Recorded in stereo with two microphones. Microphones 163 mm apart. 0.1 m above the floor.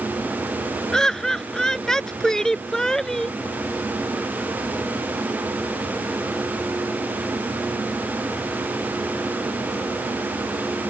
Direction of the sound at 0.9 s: 5° left (ahead or behind).